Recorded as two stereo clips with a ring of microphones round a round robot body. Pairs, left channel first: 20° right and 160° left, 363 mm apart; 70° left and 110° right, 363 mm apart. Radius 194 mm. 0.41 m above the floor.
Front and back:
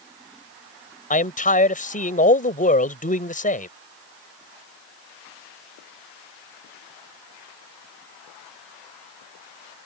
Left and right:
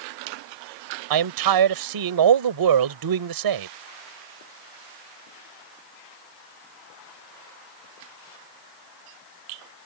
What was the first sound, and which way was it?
A man speaking, 90° right.